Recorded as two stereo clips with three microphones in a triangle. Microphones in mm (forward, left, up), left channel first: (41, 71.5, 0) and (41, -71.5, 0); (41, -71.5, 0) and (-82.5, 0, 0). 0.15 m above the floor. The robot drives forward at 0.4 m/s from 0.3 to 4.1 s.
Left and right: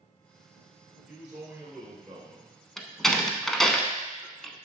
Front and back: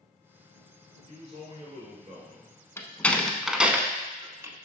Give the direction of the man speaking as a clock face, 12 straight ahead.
5 o'clock.